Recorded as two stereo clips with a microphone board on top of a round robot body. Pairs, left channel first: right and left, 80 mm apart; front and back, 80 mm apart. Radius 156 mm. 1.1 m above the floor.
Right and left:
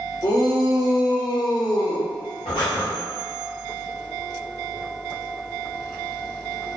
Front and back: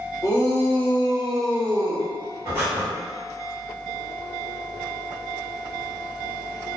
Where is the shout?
50° right, 1.6 m; by 2.1 s 135° right, 1.1 m.